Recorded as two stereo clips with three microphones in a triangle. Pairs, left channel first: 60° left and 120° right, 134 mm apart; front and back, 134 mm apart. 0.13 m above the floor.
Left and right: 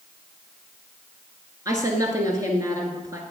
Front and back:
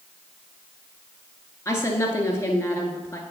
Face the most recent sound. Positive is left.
turn(degrees=-60)